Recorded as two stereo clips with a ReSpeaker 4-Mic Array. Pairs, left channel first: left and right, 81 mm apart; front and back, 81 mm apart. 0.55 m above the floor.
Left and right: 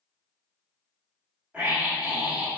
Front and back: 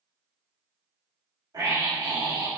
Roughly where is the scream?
Behind.